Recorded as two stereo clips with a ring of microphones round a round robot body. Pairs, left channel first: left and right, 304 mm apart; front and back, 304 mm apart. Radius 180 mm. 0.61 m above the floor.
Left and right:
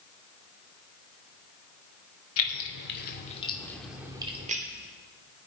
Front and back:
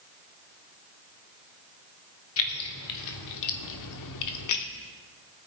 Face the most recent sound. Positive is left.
turn(degrees=-25)